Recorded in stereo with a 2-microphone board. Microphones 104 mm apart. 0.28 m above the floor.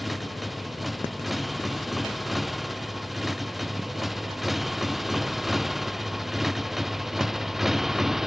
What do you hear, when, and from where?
0.0 s a motorcycle: centre (ahead or behind); by 8.3 s 5° right (ahead or behind)